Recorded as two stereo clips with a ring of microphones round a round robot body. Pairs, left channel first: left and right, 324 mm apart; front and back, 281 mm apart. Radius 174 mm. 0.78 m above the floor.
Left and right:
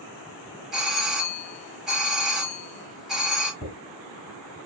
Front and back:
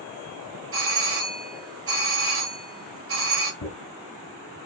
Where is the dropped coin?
10° left, 2.5 m.